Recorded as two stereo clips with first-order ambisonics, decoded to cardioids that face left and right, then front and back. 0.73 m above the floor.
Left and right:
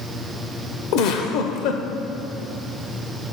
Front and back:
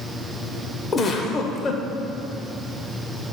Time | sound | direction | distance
0.9 | a giggle | 65° left | 0.8 m